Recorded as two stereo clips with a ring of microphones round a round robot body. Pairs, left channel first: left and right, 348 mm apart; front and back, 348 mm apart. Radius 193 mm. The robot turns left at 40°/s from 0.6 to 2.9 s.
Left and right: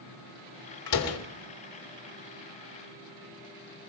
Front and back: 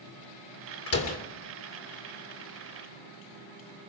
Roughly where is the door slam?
Ahead left.